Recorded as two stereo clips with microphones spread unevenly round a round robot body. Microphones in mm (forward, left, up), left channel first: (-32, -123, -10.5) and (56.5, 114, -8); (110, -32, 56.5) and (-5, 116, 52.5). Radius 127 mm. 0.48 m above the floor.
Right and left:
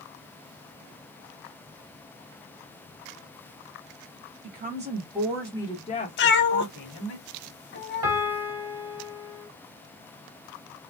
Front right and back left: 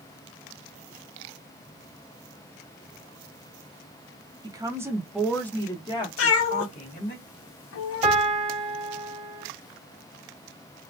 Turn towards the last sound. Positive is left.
turn(degrees=80)